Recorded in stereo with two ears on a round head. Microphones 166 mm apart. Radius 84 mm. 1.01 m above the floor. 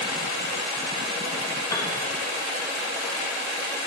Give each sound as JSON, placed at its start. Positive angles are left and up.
{"t": 1.7, "sound": "a piano", "side_deg": 20, "distance_m": 1.7}